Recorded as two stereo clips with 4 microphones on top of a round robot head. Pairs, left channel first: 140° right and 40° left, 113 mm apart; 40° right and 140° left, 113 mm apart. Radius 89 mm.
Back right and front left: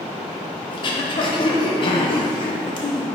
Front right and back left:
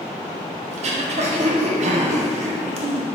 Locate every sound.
0.7 s throat clearing: 170° left, 0.7 m